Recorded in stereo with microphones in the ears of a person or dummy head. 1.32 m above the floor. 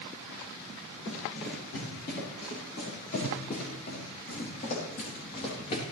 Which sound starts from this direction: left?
Running footsteps, at 1.1 s.